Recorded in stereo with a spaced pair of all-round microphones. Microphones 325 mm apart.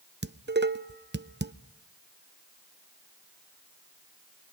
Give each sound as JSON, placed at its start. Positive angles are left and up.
{"t": 0.2, "sound": "dishes clattering", "side_deg": -35, "distance_m": 0.7}